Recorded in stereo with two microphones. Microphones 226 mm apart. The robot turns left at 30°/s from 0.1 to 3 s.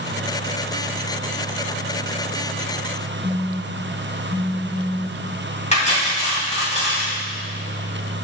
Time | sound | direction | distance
3.2 | a phone buzzing | centre (ahead or behind) | 0.8 m
5.7 | cutlery clinking | 30° left (ahead or behind) | 2 m